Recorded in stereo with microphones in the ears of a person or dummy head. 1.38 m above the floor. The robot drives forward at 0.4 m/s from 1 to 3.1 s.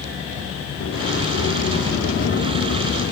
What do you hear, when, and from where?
0.8 s a sliding door: 70° left (ahead or behind), 1.9 m; by 3.1 s 50° left (ahead or behind), 2.5 m